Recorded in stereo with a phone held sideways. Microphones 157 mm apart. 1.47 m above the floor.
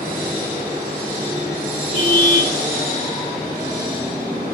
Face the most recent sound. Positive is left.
turn(degrees=45)  # may be behind; listen again after turning